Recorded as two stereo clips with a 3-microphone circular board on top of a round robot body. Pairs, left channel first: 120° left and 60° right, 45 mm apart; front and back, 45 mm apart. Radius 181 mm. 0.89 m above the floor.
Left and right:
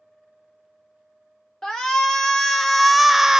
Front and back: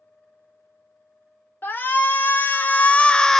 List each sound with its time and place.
1.6 s a shout: 45° left, 1.3 m; by 3.4 s 55° right, 0.6 m